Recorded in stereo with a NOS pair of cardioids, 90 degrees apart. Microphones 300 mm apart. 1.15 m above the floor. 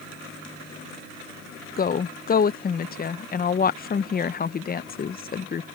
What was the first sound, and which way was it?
A woman speaking, 30° left.